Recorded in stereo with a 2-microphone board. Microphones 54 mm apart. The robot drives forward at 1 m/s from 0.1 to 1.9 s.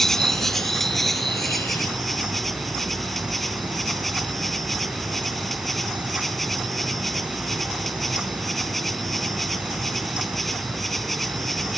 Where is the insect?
5° left (ahead or behind).